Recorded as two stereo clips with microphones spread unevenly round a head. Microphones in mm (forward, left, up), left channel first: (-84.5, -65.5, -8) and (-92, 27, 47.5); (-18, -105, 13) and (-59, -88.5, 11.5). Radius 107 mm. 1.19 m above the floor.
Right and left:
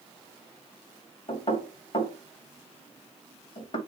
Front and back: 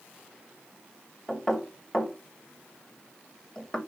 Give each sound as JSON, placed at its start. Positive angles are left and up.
{"t": 1.3, "sound": "knocking", "azimuth_deg": -95, "distance_m": 2.0}